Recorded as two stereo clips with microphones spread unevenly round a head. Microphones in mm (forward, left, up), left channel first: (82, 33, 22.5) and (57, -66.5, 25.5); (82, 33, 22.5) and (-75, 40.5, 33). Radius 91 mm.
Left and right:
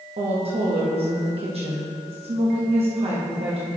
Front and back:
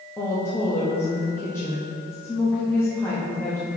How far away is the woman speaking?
About 1.1 m.